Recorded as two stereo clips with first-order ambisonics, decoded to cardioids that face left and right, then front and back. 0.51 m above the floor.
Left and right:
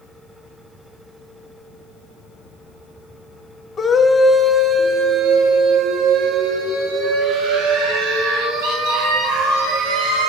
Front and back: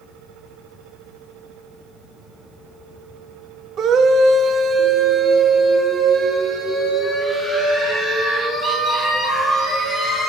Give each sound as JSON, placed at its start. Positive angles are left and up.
{"t": 3.8, "sound": "a scream", "azimuth_deg": 150, "distance_m": 0.9}